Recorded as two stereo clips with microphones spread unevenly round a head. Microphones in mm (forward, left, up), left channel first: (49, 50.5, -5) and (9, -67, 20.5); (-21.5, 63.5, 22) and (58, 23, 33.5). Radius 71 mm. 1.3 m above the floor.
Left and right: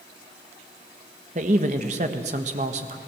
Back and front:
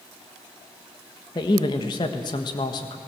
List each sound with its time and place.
1.4 s a man speaking: 155° right, 1.4 m